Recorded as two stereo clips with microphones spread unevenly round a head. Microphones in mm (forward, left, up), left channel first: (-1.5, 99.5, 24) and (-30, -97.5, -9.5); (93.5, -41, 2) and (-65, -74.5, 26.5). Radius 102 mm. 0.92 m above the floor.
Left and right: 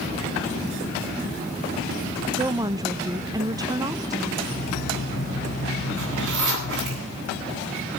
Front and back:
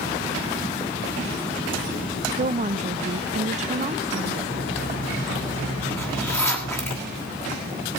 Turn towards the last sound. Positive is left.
turn(degrees=-65)